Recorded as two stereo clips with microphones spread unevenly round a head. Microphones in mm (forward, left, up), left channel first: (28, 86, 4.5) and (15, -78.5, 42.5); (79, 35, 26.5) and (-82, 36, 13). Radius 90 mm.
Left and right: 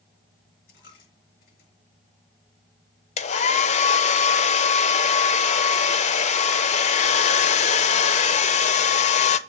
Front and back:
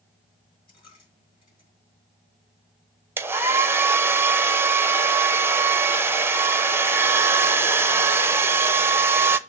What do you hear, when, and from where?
0.7 s a dropped coin: 55° left, 6.5 m
3.2 s a hair dryer: 110° left, 0.7 m